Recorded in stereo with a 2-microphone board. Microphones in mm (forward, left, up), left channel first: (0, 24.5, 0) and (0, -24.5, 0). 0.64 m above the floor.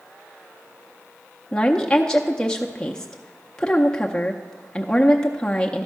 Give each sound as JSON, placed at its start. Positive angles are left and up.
{"t": 1.5, "sound": "a woman speaking", "side_deg": 15, "distance_m": 0.6}